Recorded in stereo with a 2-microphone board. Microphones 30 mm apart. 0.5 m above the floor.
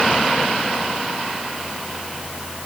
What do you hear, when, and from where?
Only background noise.